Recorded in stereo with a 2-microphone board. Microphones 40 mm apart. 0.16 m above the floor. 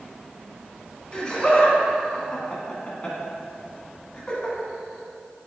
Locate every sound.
1.1 s laughter: 20° left (ahead or behind), 1.3 m